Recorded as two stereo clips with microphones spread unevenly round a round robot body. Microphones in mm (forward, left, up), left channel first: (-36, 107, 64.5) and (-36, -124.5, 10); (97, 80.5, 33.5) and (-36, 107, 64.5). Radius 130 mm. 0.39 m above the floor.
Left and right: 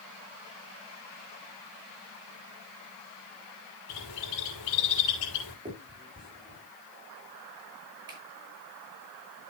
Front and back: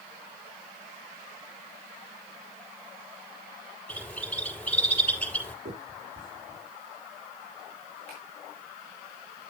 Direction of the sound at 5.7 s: 160° right.